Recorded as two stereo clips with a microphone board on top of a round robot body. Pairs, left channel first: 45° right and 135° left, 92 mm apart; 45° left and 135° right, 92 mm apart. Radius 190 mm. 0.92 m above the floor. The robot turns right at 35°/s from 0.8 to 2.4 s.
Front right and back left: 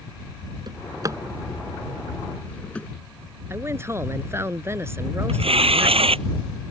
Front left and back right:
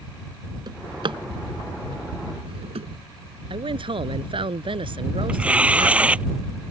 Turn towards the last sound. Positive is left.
turn(degrees=150)